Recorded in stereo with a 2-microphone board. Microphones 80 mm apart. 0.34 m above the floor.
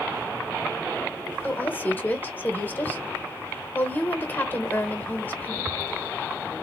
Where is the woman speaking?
25° left (ahead or behind), 1.0 m.